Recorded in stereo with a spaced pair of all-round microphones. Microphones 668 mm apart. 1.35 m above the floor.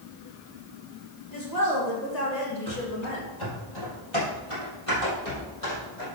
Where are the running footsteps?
20° left (ahead or behind), 2 m; by 6.0 s 60° left (ahead or behind), 4 m.